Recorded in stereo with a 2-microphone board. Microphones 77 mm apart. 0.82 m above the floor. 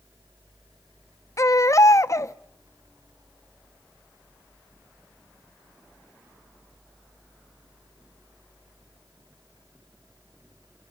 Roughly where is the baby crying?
Left.